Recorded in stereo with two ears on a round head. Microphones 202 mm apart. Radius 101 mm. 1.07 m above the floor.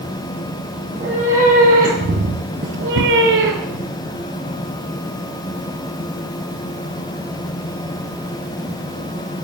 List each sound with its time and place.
0.9 s a cat meowing: 30° right (ahead or behind), 3.5 m; by 3.9 s 40° right (ahead or behind), 2.0 m